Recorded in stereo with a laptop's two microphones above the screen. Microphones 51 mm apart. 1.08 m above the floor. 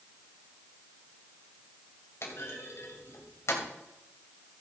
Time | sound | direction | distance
2.2 | a clunk | 65° left (ahead or behind) | 2.5 m